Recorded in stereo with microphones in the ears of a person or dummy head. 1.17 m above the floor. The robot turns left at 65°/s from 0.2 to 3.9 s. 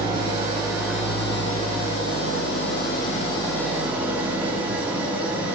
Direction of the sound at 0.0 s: 130° right.